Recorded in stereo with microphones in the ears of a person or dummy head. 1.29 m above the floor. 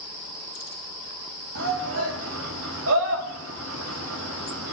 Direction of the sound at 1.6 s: 80° right.